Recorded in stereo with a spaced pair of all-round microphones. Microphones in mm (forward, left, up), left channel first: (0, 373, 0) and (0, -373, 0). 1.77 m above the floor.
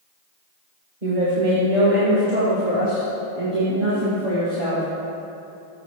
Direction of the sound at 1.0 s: 80° right.